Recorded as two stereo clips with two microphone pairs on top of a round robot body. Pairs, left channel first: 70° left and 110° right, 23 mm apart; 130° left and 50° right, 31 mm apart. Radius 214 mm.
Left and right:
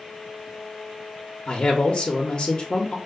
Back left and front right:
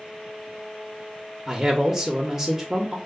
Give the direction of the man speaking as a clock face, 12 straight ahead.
11 o'clock.